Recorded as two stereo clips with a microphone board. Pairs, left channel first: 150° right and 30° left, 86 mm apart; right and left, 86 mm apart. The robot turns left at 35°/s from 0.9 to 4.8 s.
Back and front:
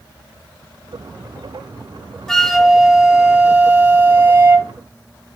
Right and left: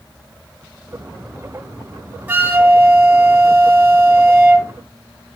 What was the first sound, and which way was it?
A flute, 130° left.